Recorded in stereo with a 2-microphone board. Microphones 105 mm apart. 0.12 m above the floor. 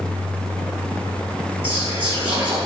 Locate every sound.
1.6 s whispering: 15° right (ahead or behind), 1.6 m